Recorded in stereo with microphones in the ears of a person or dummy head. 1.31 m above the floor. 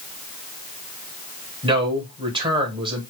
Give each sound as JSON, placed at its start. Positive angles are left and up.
{"t": 1.6, "sound": "a man speaking", "side_deg": -30, "distance_m": 1.7}